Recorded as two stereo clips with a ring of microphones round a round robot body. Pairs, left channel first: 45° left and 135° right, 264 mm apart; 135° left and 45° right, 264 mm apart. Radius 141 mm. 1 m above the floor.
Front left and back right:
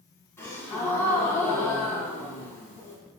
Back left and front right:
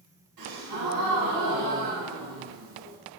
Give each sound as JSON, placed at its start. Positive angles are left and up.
{"t": 0.4, "sound": "a gasp", "azimuth_deg": -35, "distance_m": 3.0}